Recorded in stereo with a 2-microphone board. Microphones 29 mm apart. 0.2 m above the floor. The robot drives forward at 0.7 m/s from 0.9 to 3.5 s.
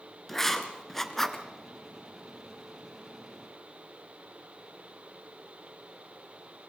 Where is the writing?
5° left (ahead or behind), 1.5 m; by 1.4 s 10° left (ahead or behind), 1.2 m.